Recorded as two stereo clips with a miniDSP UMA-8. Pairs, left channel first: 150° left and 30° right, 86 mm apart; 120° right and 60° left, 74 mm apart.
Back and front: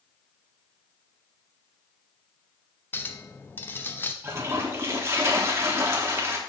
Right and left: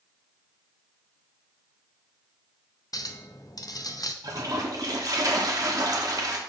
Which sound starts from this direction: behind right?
A clink, at 2.9 s.